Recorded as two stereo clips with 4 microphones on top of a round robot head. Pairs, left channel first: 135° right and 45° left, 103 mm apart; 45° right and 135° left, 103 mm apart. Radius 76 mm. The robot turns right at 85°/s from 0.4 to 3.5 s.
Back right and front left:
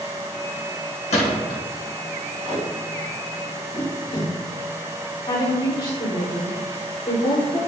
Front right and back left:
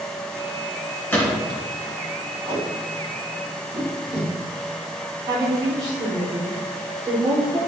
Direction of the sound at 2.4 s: 95° left.